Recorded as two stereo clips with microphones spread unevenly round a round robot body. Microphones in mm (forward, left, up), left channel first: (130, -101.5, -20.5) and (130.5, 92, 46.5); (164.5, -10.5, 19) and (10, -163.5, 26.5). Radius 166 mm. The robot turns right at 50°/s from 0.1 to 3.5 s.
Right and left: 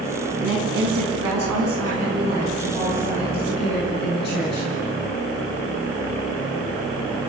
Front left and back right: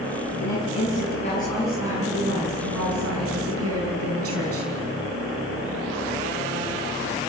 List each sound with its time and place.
0.4 s a woman speaking: 70° left, 6 m; by 4.7 s 135° right, 6 m